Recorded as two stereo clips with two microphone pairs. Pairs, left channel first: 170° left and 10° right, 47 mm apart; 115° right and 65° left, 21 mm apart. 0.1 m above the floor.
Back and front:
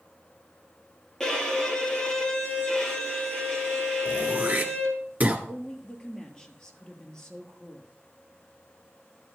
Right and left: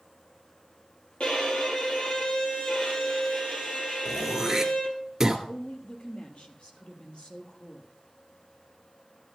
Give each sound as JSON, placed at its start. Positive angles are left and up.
{"t": 1.2, "sound": "a violin", "azimuth_deg": -115, "distance_m": 3.0}
{"t": 4.0, "sound": "throat clearing", "azimuth_deg": 0, "distance_m": 2.0}
{"t": 5.5, "sound": "a woman speaking", "azimuth_deg": -115, "distance_m": 2.5}